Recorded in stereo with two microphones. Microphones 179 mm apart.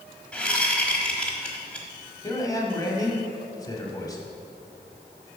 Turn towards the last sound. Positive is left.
turn(degrees=20)  # may be behind; listen again after turning